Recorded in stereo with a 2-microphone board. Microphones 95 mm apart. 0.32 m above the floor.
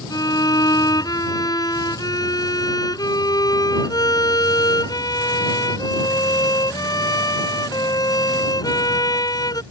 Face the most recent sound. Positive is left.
turn(degrees=45)  # may be behind; listen again after turning